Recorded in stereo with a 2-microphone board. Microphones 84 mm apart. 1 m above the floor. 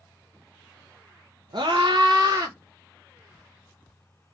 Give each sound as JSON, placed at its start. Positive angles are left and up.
{"t": 1.5, "sound": "a scream", "side_deg": -60, "distance_m": 0.7}